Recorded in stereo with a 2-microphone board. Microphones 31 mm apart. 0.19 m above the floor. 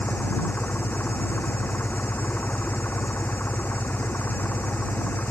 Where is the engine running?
80° left.